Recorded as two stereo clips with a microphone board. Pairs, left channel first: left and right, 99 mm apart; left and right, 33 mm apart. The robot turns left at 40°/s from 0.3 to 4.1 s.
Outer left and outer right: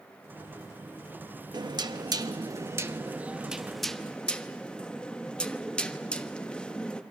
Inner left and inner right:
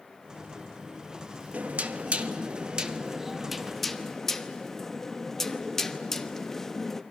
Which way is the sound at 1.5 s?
90° right.